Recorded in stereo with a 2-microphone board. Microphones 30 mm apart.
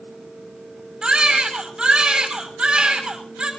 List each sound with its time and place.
1.0 s a baby crying: 35° right (ahead or behind), 6.5 m